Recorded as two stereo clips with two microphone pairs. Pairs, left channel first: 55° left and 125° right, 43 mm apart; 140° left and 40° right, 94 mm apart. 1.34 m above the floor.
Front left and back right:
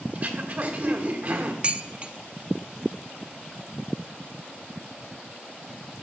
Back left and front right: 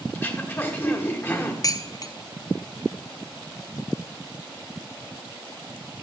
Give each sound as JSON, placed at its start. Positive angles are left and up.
{"t": 0.1, "sound": "throat clearing", "azimuth_deg": -160, "distance_m": 1.2}
{"t": 1.6, "sound": "dishes clattering", "azimuth_deg": 180, "distance_m": 0.5}